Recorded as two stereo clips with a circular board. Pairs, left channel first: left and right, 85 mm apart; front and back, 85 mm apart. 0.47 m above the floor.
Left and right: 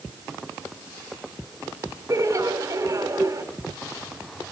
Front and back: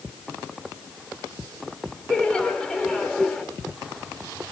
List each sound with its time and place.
2.1 s laughter: 75° right, 1.2 m